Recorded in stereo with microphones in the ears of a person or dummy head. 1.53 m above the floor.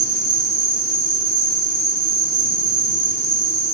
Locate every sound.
0.0 s an insect: 20° left (ahead or behind), 2.5 m